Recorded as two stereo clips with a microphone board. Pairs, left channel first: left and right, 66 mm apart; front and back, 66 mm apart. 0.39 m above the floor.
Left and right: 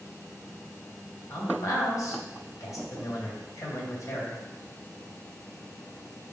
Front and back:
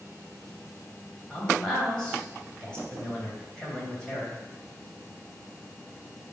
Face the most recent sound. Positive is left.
turn(degrees=75)